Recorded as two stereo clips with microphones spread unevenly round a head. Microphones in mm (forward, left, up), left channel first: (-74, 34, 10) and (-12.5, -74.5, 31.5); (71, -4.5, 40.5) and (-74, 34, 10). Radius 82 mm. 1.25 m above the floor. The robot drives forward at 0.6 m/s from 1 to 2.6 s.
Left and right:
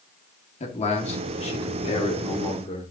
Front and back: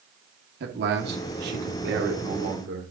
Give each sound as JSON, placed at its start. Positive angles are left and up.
{"t": 0.6, "sound": "a man speaking", "azimuth_deg": 155, "distance_m": 2.0}